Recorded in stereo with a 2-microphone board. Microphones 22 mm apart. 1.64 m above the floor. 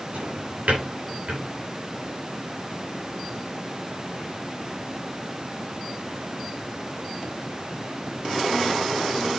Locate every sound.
0.1 s a drawer: 65° right (ahead or behind), 8 m